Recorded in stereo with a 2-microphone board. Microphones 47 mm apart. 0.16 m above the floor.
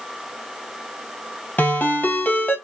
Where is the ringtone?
35° left (ahead or behind), 2.5 m.